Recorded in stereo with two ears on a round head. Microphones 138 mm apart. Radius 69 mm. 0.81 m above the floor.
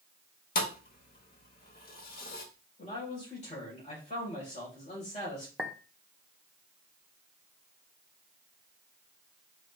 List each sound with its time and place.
0.6 s a thud: 60° left (ahead or behind), 0.9 m
2.8 s a man speaking: 50° left (ahead or behind), 3.5 m
5.6 s a clink: 5° right (ahead or behind), 0.7 m